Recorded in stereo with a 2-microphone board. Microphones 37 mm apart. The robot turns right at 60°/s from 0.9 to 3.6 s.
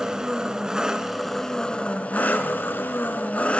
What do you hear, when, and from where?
0.0 s an engine running: 20° right, 1.7 m; by 3.6 s 140° left, 1.7 m